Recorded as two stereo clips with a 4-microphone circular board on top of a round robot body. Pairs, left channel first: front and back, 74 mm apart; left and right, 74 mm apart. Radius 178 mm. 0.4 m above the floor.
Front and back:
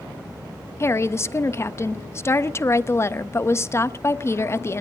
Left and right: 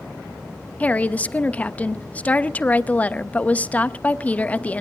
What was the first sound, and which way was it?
A woman speaking, 30° left.